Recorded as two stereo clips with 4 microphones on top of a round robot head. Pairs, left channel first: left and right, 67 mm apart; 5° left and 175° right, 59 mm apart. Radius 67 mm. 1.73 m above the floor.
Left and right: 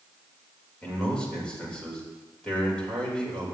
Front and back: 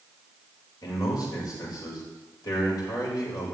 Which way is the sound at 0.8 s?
15° left.